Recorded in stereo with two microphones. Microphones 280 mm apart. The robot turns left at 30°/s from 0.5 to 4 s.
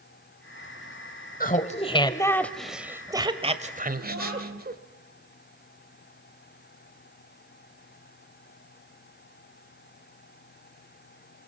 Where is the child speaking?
75° right (ahead or behind), 8.5 m.